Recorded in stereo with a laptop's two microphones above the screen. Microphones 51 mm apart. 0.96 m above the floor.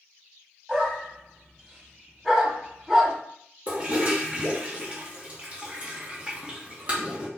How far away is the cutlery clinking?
I don't hear cutlery clinking.